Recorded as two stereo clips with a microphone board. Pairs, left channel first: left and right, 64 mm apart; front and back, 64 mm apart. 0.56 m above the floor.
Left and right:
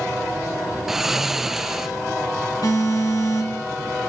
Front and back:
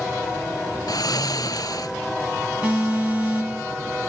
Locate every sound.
0.9 s snoring: 5° right, 0.7 m
2.6 s an alarm: 110° left, 3.5 m